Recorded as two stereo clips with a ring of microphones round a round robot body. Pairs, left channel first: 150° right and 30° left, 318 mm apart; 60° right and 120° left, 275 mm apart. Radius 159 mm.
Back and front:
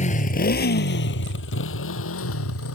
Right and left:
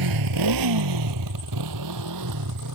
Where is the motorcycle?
140° left; by 2.8 s 160° left.